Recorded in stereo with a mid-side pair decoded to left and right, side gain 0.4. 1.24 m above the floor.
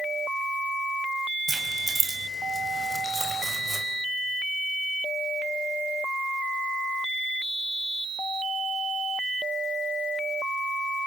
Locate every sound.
1.5 s keys jangling: 25° right, 5.5 m; by 3.9 s 15° right, 4 m